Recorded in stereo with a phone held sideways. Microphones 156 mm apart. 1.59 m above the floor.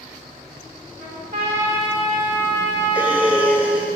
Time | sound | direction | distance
1.0 | a trumpet | 85° right | 4 m
3.0 | breathing | 10° right (ahead or behind) | 1.4 m